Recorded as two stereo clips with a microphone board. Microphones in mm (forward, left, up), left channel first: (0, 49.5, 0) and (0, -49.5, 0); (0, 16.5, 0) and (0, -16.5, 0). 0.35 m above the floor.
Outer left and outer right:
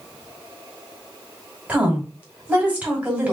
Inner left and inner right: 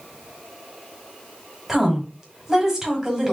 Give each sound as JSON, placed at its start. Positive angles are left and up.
{"t": 1.7, "sound": "a woman speaking", "side_deg": -15, "distance_m": 2.0}